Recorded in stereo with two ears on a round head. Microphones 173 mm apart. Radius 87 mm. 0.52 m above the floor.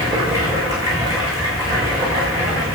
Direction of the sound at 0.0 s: 20° right (ahead or behind).